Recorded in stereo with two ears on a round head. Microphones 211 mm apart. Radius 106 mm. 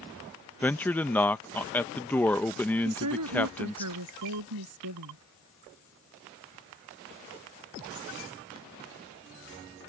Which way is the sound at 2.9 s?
85° right.